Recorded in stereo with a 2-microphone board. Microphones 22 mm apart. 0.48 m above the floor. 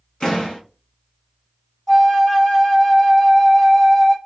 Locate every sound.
0.2 s a door slam: 45° left (ahead or behind), 2 m
1.9 s a flute: 30° left (ahead or behind), 1.2 m